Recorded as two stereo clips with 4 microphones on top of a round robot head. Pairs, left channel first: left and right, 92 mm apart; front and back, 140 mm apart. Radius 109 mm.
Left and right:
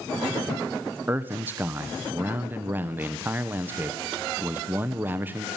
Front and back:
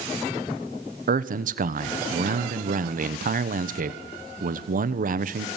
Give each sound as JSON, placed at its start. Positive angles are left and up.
{"t": 1.1, "sound": "a man speaking", "azimuth_deg": -160, "distance_m": 1.2}